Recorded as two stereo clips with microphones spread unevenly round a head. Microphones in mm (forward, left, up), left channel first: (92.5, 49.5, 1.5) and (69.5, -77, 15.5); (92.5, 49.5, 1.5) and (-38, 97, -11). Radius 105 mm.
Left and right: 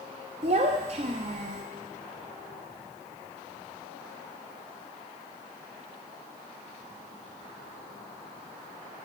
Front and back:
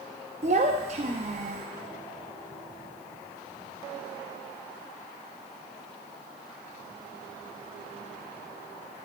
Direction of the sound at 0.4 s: 145° right.